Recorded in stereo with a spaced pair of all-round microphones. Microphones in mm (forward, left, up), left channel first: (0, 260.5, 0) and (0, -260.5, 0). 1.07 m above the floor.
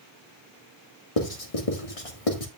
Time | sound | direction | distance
1.2 | writing | 85° left | 1.8 m